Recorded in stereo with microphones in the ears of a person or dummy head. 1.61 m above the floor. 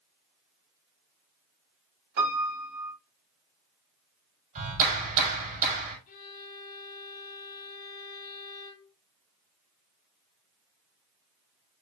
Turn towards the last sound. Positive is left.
turn(degrees=55)  # may be behind; listen again after turning